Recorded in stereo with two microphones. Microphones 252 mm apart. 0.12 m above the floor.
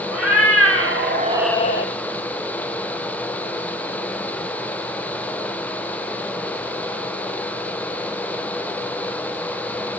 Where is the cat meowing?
70° right (ahead or behind), 2.0 m; by 1.9 s 50° left (ahead or behind), 0.8 m.